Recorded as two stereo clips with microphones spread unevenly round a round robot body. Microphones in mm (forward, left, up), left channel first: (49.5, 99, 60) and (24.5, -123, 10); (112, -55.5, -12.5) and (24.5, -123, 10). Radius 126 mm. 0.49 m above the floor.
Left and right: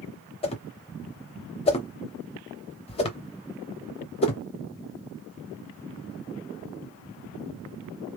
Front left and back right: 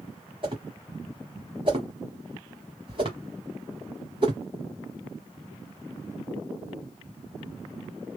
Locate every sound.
0.4 s a whoosh: 150° left, 0.6 m